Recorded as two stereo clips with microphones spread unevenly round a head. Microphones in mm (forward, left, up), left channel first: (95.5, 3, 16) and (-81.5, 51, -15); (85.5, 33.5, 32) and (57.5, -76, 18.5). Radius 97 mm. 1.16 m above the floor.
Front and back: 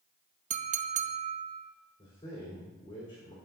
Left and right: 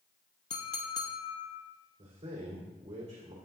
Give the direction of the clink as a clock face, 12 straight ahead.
8 o'clock.